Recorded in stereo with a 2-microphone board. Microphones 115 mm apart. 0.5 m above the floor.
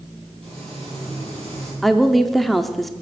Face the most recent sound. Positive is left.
turn(degrees=0)  # may be behind; listen again after turning